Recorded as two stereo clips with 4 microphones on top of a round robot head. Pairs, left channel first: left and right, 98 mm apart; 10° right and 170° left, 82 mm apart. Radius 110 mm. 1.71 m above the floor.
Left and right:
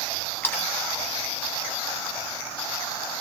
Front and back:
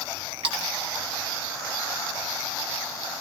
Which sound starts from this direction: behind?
A splash, at 0.4 s.